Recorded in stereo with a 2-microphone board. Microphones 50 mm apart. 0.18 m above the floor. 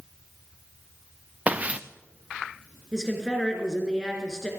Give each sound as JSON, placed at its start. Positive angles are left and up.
{"t": 1.5, "sound": "footsteps", "side_deg": -25, "distance_m": 0.9}
{"t": 2.9, "sound": "a woman speaking", "side_deg": 10, "distance_m": 3.0}